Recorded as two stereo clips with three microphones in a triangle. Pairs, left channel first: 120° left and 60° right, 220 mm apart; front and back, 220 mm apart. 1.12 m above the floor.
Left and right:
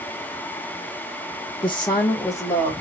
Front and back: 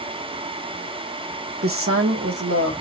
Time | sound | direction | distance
1.6 | a woman speaking | 175° right | 1.0 m